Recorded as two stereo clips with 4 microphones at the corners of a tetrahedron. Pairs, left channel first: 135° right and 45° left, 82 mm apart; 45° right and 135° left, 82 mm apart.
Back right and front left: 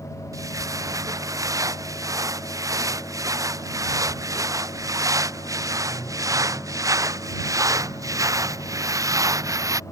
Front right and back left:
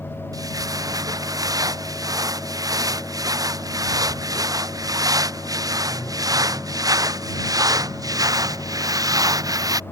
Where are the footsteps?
90° left.